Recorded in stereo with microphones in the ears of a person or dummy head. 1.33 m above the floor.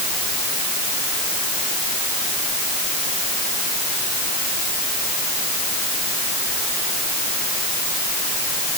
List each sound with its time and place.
Only background noise.